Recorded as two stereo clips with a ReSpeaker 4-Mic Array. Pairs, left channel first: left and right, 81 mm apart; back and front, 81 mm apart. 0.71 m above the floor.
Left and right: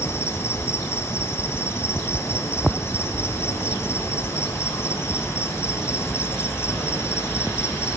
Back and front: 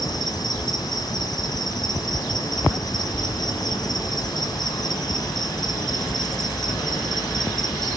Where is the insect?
145° left, 1.6 m.